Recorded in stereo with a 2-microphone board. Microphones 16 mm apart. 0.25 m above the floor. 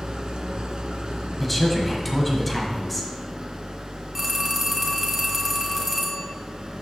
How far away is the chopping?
No chopping in this recording.